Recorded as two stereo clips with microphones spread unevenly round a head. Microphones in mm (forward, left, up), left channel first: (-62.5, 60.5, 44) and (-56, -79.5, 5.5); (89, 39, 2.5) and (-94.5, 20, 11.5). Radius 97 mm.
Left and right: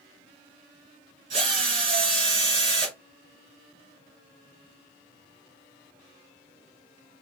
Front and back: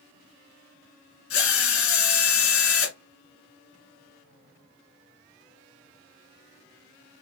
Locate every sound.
1.3 s a drill: 20° right, 3 m